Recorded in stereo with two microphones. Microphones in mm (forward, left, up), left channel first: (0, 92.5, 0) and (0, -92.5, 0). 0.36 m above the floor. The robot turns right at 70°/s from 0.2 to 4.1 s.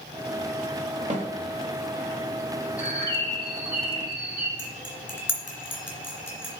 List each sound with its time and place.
1.1 s a snare drum: 40° right (ahead or behind), 1.2 m; by 1.3 s 30° right (ahead or behind), 1.2 m
2.8 s a bird: 100° right, 2.0 m; by 4.5 s 10° right, 2.0 m
4.6 s cutlery clinking: 10° left (ahead or behind), 2.5 m